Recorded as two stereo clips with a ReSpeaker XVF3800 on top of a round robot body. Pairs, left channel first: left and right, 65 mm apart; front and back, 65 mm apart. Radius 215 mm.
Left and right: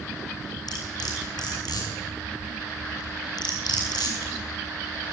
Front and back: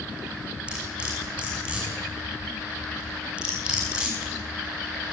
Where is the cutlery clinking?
105° left, 6 m.